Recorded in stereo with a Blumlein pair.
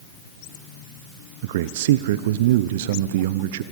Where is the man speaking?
55° right, 0.7 m.